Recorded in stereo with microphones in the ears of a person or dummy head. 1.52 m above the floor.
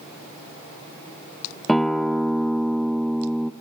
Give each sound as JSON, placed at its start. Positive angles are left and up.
{"t": 1.7, "sound": "a guitar", "side_deg": 0, "distance_m": 1.0}